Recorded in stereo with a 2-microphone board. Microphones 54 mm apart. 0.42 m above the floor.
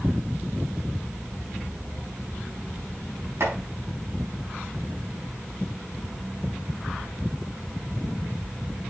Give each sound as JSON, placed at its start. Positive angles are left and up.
{"t": 3.4, "sound": "chopping", "side_deg": -65, "distance_m": 4.5}